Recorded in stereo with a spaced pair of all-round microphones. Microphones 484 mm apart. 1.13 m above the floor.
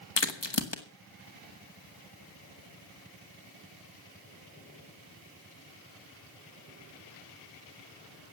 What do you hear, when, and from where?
0.2 s a crack: 60° left (ahead or behind), 1.6 m